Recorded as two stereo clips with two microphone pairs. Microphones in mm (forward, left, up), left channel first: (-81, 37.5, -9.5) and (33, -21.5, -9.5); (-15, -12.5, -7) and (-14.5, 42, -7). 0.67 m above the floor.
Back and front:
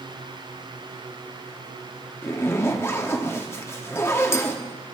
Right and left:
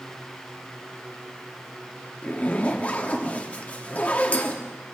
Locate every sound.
2.2 s a zipper: 145° right, 1.0 m